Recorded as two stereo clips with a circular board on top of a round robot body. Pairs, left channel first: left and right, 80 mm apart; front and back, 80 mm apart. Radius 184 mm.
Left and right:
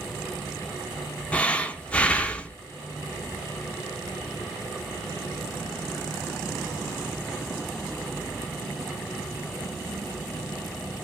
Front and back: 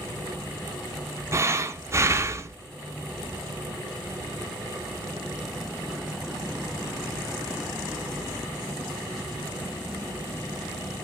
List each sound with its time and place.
1.3 s breathing: 155° left, 0.6 m